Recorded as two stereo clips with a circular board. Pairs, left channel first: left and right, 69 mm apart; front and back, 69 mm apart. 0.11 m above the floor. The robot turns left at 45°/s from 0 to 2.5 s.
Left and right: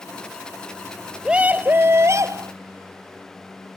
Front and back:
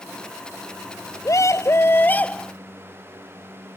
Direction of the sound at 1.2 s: 20° right.